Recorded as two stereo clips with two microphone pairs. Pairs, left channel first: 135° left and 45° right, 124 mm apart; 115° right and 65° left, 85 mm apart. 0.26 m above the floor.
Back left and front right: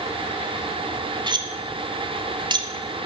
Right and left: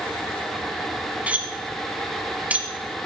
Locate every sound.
1.3 s cutlery clinking: 5° right, 1.1 m